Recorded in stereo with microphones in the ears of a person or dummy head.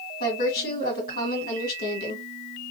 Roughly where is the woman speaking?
Left.